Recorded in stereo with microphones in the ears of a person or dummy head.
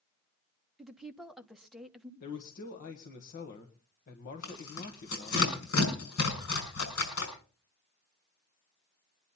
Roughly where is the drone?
I don't hear a drone.